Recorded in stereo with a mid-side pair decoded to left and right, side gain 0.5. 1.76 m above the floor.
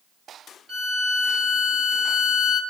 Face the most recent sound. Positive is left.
turn(degrees=-45)